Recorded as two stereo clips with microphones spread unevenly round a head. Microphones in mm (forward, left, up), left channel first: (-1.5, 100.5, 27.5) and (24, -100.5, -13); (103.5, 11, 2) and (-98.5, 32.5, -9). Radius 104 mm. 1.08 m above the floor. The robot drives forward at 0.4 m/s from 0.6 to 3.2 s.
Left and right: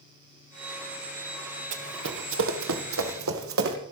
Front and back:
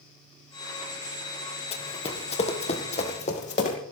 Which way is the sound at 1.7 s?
55° right.